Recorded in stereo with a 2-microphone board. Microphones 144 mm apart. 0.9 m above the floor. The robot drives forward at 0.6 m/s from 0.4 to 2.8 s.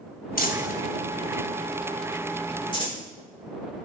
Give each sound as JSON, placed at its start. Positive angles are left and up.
{"t": 0.4, "sound": "crumpling", "side_deg": 85, "distance_m": 1.0}